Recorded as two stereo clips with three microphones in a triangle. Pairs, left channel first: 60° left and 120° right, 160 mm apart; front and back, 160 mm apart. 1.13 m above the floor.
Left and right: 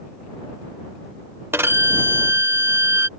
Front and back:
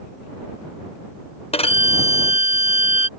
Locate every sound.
1.5 s a violin: 45° right